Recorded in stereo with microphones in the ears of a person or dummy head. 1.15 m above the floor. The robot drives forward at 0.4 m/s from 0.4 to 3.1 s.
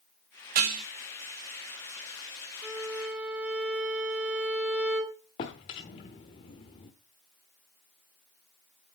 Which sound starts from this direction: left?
A drawer, at 5.4 s.